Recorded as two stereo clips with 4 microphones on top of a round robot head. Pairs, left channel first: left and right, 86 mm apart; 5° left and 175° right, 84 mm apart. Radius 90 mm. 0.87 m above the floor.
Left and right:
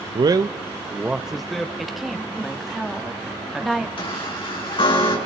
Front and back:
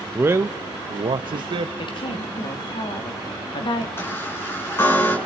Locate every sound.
0.1 s a man speaking: 110° right, 0.6 m; by 1.7 s 175° left, 0.9 m
1.8 s a woman speaking: straight ahead, 2 m
4.0 s a chime: 70° left, 5 m